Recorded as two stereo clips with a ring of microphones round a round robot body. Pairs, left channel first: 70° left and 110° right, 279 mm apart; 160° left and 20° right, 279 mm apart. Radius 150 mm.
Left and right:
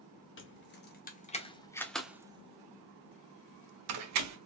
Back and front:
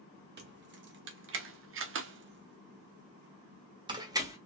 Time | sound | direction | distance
0.4 | keys jangling | 25° left | 1.4 m